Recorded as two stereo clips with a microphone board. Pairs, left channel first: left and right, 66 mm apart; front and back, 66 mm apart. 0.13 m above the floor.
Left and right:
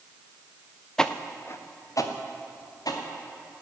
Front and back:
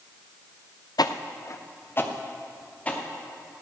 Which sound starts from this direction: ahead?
Footsteps, at 1.0 s.